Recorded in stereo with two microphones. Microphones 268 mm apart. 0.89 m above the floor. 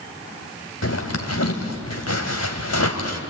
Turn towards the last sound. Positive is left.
turn(degrees=70)  # may be behind; listen again after turning